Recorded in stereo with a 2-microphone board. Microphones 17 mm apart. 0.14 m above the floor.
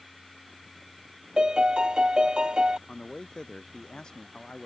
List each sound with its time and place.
1.4 s a piano: 75° right (ahead or behind)
2.9 s a man speaking: 65° left (ahead or behind)